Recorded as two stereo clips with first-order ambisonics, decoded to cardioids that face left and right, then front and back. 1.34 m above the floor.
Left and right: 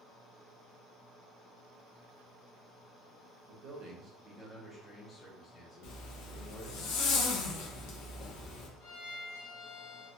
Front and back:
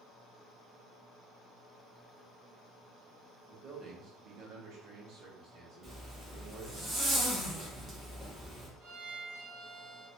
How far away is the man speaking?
About 0.8 m.